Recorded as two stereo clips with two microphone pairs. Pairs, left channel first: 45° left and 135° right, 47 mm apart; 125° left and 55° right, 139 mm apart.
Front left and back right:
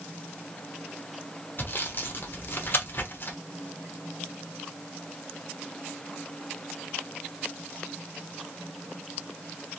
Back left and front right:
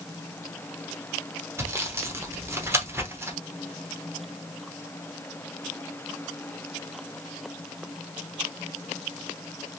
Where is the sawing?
15° left, 0.9 m.